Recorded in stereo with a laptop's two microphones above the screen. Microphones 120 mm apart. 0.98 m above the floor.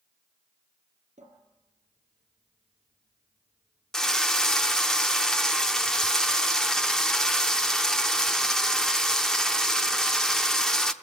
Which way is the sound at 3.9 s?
5° left (ahead or behind).